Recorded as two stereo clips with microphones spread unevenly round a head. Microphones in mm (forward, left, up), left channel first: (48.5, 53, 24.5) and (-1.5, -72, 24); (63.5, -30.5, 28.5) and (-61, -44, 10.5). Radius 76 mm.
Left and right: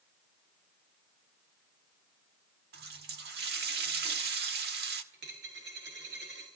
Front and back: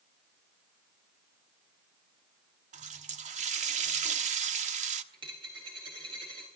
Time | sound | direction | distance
2.7 | a running tap | 140° right | 1.3 m
5.1 | a dropped coin | 120° right | 7 m